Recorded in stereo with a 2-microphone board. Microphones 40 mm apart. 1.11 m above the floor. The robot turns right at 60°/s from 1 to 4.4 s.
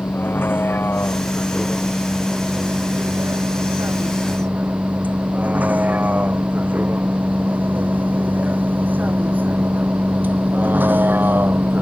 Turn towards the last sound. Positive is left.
turn(degrees=-55)  # may be behind; listen again after turning